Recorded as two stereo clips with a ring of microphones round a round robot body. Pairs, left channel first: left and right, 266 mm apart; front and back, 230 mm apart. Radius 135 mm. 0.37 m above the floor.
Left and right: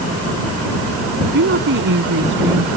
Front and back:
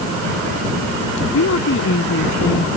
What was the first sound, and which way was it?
A woman speaking, 40° right.